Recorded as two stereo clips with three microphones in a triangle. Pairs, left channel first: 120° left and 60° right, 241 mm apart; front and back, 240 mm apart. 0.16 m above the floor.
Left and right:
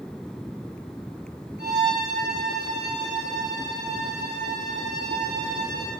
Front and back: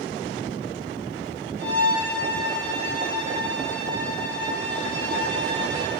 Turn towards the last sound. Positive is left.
turn(degrees=145)